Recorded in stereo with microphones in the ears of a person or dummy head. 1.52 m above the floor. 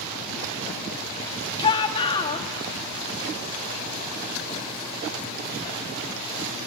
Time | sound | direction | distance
1.6 | a shout | 35° left (ahead or behind) | 2.5 m